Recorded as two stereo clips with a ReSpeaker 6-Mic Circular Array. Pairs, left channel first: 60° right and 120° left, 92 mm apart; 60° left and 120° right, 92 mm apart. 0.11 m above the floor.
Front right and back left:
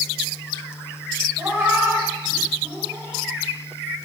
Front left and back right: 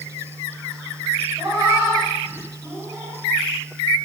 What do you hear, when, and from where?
1.4 s a cat meowing: straight behind, 9 m; by 3.2 s 175° left, 10 m